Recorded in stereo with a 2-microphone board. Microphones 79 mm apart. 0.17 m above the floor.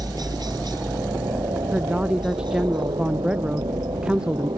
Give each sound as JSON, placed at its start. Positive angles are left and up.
{"t": 0.0, "sound": "a helicopter", "side_deg": -55}
{"t": 1.7, "sound": "a woman speaking", "side_deg": -15}